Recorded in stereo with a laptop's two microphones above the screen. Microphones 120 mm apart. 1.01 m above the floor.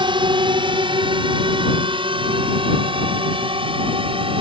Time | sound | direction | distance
0.0 | a drone | 40° right (ahead or behind) | ?